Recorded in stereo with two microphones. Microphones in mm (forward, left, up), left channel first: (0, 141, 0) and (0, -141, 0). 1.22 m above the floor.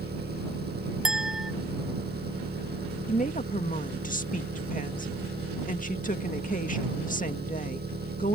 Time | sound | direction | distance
0.0 | an engine running | 35° right (ahead or behind) | ?
1.1 | a clink | centre (ahead or behind) | ?
3.1 | a woman speaking | 30° left (ahead or behind) | ?